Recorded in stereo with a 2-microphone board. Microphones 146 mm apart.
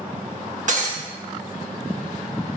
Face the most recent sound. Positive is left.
turn(degrees=-60)  # may be behind; listen again after turning